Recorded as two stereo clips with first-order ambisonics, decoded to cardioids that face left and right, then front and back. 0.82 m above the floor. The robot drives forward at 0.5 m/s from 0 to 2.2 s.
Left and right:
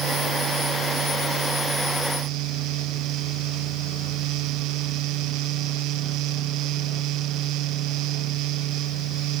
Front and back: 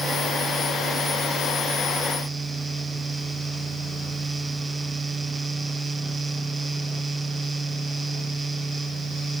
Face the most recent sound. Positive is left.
No sound to turn to.